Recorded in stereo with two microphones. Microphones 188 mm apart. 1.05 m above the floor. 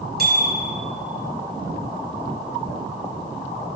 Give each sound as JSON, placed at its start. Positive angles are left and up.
{"t": 0.2, "sound": "a bicycle bell", "side_deg": -55, "distance_m": 5.5}